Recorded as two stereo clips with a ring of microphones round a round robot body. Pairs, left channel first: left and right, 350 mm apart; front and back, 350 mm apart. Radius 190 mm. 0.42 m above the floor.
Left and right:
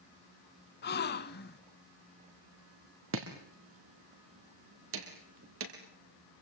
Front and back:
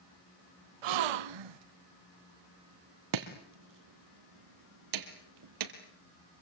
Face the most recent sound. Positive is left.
turn(degrees=-150)